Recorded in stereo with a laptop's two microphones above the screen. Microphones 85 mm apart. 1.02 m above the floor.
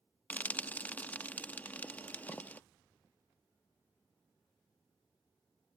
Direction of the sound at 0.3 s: 20° left (ahead or behind).